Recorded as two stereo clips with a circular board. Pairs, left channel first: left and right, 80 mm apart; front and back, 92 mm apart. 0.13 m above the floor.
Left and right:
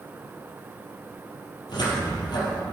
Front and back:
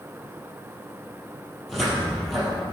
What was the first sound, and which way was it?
A cupboard door, 90° left.